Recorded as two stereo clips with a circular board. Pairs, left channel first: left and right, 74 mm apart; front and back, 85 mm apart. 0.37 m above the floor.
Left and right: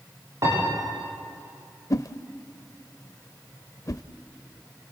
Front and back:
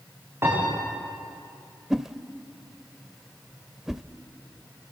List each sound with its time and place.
0.4 s a piano: 125° right, 9.5 m
1.9 s a whoosh: 95° left, 0.6 m